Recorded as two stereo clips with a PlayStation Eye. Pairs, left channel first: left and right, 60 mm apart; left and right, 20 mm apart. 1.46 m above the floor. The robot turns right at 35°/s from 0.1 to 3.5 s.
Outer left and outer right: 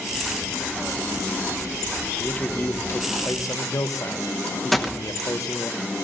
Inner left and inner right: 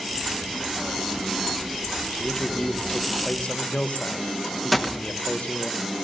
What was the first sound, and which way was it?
A man speaking, 25° left.